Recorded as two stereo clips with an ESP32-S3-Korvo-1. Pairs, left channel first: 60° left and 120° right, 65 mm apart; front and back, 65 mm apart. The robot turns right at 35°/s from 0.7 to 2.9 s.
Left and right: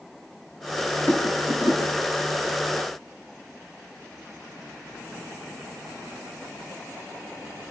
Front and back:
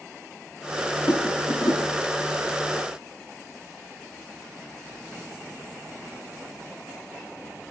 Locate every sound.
1.1 s a rattle: straight ahead, 7.5 m; by 2.0 s 30° left, 7.5 m